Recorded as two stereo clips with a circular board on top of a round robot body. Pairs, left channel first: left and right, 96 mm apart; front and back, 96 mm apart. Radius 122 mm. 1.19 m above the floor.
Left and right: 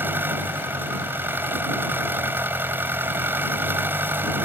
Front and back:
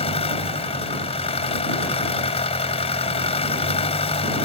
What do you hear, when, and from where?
0.0 s an engine running: 20° right